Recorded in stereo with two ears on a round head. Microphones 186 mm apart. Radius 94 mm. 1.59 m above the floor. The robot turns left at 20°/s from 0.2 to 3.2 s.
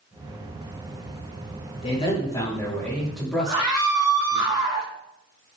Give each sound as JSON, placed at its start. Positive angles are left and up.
{"t": 1.8, "sound": "a man speaking", "side_deg": 30, "distance_m": 4.5}
{"t": 3.5, "sound": "a scream", "side_deg": -30, "distance_m": 2.0}